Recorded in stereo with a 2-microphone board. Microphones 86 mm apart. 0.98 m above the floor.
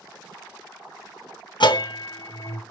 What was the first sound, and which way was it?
A bell, 60° left (ahead or behind).